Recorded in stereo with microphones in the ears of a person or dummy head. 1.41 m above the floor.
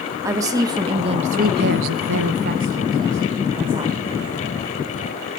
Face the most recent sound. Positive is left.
turn(degrees=-20)  # may be behind; listen again after turning